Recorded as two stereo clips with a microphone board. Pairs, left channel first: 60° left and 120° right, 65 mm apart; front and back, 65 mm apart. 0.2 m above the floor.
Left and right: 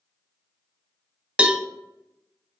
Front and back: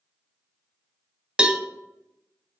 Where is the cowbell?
135° right, 0.6 m.